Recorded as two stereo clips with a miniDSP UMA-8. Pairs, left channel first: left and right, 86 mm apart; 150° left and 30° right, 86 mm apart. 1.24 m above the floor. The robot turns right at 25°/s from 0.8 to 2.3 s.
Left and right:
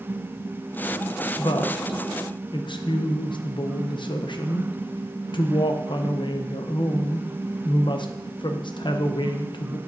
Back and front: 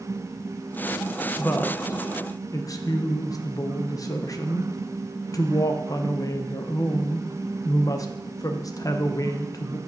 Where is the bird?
No bird in this recording.